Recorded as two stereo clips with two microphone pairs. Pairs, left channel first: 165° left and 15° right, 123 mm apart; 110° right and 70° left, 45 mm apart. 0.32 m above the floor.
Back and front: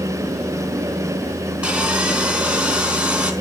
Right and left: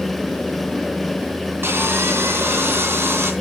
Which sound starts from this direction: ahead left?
Sawing, at 1.6 s.